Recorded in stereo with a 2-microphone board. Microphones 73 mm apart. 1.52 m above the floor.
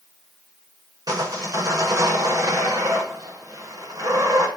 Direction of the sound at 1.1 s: 55° right (ahead or behind).